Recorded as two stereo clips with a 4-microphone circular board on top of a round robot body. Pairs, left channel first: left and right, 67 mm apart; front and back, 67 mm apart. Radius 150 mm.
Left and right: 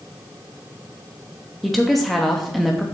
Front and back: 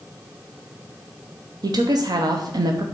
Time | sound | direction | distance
1.6 | a woman speaking | straight behind | 0.9 m